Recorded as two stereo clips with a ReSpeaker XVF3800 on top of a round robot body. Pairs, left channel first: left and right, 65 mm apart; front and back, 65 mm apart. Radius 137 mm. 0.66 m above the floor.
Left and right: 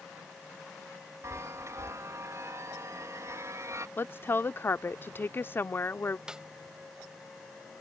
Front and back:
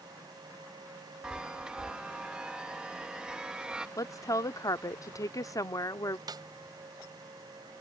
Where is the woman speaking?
35° left.